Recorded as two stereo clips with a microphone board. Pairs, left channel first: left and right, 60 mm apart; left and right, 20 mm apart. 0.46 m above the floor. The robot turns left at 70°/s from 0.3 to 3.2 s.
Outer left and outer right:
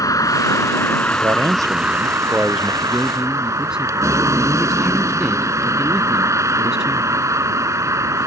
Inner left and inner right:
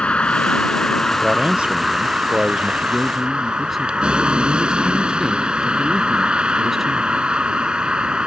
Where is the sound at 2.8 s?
40° right (ahead or behind); by 7.2 s 10° right (ahead or behind).